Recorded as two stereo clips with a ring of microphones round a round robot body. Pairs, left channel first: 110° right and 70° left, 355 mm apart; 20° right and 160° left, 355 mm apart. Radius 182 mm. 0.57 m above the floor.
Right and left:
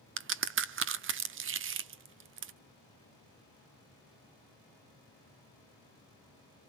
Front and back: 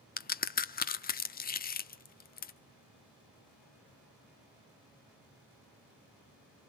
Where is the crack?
30° left, 1.1 m.